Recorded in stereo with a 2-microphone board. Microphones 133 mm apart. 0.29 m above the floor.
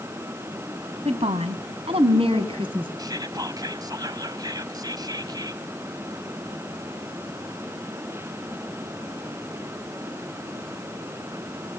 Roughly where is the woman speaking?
Right.